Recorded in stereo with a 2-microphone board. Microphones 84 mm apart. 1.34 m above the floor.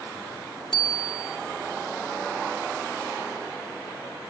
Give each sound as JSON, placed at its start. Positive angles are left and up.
{"t": 0.7, "sound": "a bicycle bell", "side_deg": 80, "distance_m": 2.0}